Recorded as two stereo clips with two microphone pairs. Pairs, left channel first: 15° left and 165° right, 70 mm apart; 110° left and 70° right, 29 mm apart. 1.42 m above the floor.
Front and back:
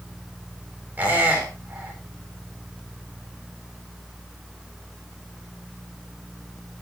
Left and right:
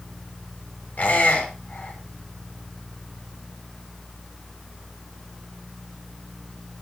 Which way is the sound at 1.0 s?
130° left.